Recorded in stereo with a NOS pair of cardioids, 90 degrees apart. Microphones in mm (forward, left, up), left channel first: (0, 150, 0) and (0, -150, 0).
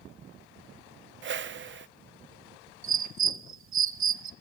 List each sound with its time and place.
1.2 s a whoosh: 40° right, 0.8 m
2.8 s a bird: 45° right, 0.9 m